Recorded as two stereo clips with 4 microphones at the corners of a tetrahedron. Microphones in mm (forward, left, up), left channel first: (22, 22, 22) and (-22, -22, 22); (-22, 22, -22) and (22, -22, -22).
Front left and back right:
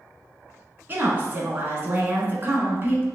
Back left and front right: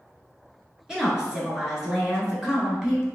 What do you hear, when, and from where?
0.9 s a woman speaking: 115° right, 1.2 m